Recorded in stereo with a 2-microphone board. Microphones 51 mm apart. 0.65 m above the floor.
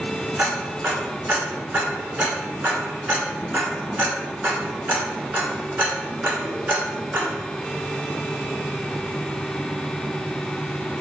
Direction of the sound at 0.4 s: 35° right (ahead or behind).